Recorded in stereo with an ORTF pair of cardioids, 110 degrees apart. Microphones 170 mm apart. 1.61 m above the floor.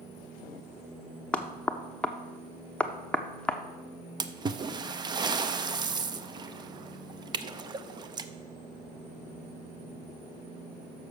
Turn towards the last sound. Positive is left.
turn(degrees=-25)